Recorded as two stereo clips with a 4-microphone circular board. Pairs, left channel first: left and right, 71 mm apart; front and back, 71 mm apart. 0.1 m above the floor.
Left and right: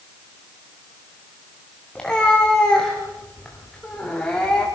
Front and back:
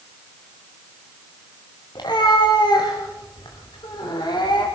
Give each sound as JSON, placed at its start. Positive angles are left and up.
{"t": 1.9, "sound": "a cat meowing", "azimuth_deg": 10, "distance_m": 7.0}